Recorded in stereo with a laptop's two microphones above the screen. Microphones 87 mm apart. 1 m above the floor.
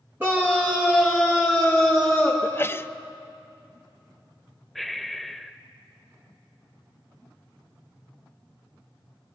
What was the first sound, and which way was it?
A scream, 25° right (ahead or behind).